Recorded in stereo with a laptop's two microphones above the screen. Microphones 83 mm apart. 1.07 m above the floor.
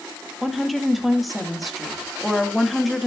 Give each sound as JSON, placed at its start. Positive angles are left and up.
{"t": 0.4, "sound": "a woman speaking", "side_deg": 0, "distance_m": 1.7}